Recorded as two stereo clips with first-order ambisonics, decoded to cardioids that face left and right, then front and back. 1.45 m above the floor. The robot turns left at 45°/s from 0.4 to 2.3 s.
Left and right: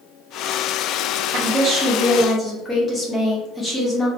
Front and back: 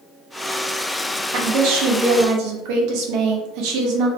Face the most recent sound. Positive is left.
turn(degrees=165)